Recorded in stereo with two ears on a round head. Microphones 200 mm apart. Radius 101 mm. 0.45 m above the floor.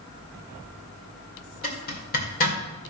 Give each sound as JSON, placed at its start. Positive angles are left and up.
{"t": 1.6, "sound": "a zipper", "side_deg": 40, "distance_m": 1.8}